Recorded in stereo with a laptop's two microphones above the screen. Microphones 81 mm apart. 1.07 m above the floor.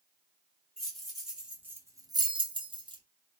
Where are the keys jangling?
5° left (ahead or behind), 1.0 m; by 3.0 s 75° right (ahead or behind), 0.7 m.